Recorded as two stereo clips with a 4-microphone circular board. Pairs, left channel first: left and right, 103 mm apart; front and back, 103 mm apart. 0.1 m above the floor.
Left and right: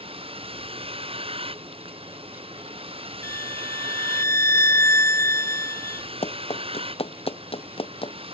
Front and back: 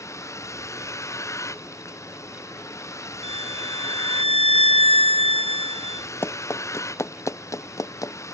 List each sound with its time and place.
0.0 s a vehicle: 60° right
3.2 s a violin: 25° left
6.2 s running footsteps: 70° left; by 8.1 s 60° left